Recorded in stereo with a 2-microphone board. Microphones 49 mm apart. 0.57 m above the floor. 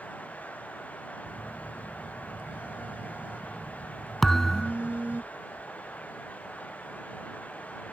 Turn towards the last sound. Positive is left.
turn(degrees=10)  # may be behind; listen again after turning